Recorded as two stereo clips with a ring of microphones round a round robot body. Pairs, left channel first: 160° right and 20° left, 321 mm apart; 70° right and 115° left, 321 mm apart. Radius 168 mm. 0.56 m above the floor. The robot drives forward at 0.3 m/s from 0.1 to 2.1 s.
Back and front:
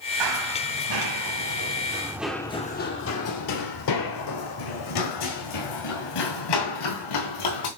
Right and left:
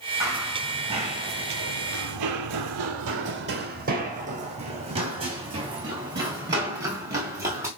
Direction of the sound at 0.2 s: 30° left.